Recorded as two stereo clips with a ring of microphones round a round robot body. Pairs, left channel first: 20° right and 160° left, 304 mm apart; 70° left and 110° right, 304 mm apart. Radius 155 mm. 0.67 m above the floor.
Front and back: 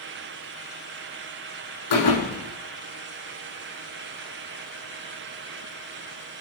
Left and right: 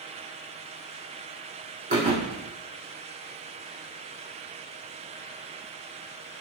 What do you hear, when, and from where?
1.9 s a thud: 45° right, 3.5 m